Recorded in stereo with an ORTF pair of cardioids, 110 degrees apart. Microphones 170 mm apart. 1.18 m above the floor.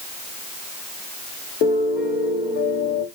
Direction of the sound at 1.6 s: 65° left.